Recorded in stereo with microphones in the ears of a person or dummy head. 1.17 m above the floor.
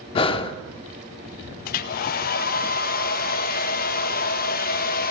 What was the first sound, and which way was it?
Breathing, 35° left (ahead or behind).